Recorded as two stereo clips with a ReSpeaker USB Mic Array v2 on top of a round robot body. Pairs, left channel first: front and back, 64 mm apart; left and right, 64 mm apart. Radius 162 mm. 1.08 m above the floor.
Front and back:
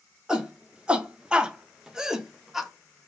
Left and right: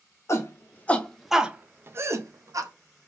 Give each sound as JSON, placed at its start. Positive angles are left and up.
{"t": 0.3, "sound": "a shout", "azimuth_deg": 110, "distance_m": 0.8}